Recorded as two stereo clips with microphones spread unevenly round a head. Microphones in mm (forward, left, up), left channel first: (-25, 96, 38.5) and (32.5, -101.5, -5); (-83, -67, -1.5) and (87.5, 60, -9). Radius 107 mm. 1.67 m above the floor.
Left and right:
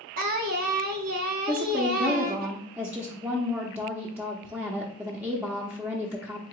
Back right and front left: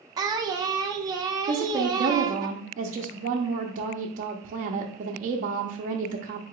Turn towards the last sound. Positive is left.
turn(degrees=15)